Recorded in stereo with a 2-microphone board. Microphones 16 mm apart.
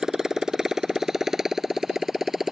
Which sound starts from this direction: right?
A motorcycle, at 0.0 s.